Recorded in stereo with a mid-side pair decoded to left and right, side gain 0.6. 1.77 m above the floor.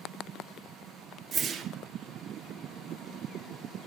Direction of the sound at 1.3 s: 45° right.